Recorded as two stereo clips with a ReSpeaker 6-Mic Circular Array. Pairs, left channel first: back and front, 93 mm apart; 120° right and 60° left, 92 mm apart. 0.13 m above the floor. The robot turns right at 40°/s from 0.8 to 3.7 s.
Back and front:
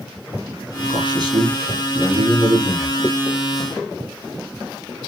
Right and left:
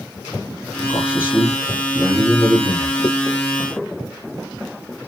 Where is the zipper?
120° right, 1.6 m; by 3.1 s 115° right, 1.6 m.